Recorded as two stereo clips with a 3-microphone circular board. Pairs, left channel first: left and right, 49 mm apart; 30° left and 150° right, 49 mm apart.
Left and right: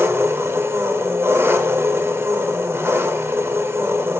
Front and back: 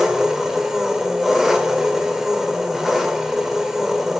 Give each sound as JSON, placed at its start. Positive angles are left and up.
{"t": 0.0, "sound": "an engine running", "azimuth_deg": -65, "distance_m": 1.9}